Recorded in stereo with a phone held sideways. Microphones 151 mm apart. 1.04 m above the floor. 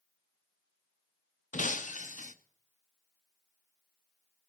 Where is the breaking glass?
60° left (ahead or behind), 0.6 m.